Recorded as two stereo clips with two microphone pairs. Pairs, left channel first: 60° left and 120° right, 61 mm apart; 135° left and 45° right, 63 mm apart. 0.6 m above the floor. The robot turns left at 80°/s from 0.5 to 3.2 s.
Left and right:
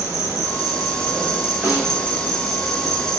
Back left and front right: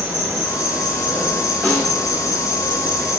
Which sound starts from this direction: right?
An insect, at 0.0 s.